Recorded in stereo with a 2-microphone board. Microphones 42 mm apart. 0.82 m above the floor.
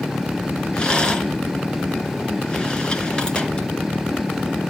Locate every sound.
0.7 s a rattle: 25° left (ahead or behind), 1.9 m